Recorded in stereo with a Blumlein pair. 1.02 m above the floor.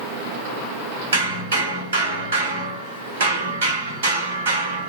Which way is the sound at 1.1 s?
60° right.